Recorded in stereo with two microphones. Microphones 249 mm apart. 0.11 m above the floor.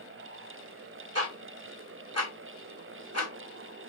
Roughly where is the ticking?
Right.